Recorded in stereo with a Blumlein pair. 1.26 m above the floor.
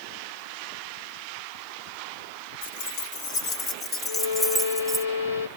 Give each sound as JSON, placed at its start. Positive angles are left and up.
{"t": 2.6, "sound": "keys jangling", "azimuth_deg": 55, "distance_m": 2.0}
{"t": 4.0, "sound": "a violin", "azimuth_deg": 65, "distance_m": 1.2}